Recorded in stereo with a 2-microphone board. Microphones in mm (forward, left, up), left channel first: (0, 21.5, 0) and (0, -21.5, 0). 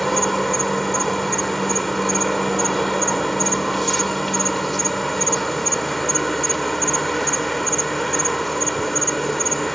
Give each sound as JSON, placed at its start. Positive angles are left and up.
{"t": 0.0, "sound": "an insect", "side_deg": 5}